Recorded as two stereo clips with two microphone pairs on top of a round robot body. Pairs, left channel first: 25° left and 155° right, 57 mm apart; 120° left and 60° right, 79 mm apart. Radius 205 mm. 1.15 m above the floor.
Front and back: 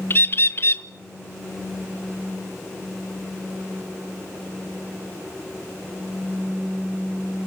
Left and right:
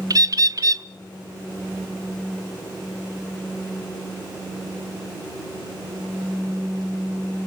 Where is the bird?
20° right, 1.0 m.